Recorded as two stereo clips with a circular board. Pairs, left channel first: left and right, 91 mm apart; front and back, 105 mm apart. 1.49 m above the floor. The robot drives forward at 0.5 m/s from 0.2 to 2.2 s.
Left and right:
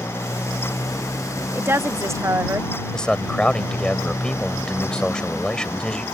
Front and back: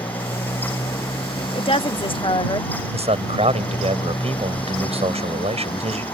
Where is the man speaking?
170° left.